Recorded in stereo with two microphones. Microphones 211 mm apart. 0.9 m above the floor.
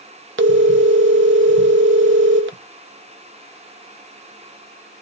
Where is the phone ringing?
75° right (ahead or behind), 0.5 m.